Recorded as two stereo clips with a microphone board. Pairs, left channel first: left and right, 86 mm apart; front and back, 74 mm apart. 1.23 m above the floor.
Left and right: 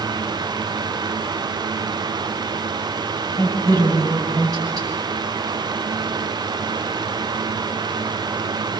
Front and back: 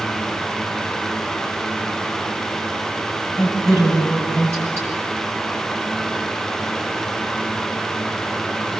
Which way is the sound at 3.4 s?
130° right.